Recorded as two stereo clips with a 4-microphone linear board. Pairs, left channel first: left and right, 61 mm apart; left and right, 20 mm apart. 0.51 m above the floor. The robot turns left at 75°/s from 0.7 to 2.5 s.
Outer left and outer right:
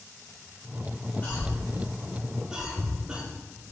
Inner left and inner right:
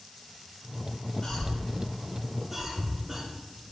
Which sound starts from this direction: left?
A cough, at 1.2 s.